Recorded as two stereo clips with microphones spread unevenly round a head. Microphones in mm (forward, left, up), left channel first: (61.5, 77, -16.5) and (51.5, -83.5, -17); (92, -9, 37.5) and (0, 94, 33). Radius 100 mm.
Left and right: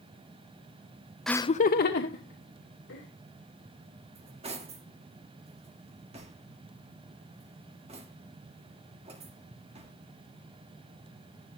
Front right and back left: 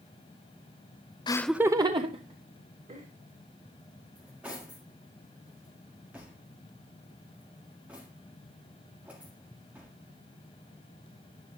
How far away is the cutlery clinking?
About 1.8 m.